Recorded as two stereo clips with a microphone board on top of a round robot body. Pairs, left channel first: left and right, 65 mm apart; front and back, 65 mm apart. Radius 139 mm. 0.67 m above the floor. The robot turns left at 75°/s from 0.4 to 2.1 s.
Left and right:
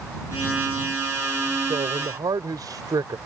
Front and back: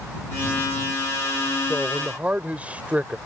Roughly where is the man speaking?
Right.